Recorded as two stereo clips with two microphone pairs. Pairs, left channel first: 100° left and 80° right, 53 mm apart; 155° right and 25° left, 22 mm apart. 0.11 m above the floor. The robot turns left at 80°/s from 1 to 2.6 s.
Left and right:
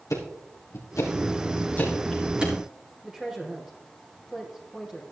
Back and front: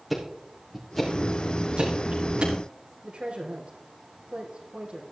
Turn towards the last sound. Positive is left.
turn(degrees=0)